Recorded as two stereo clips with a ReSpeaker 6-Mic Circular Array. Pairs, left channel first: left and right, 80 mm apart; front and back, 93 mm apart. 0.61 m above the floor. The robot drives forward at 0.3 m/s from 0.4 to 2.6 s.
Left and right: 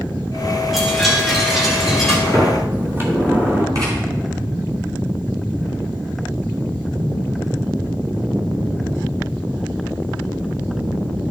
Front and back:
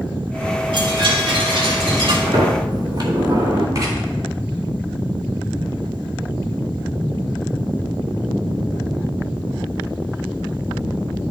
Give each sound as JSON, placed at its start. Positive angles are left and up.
{"t": 0.7, "sound": "a chime", "azimuth_deg": 180, "distance_m": 2.0}
{"t": 2.3, "sound": "a sliding door", "azimuth_deg": -145, "distance_m": 2.0}
{"t": 3.8, "sound": "writing", "azimuth_deg": -130, "distance_m": 3.5}